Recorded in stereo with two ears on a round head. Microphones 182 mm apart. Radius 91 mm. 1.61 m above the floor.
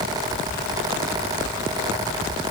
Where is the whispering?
I don't hear whispering.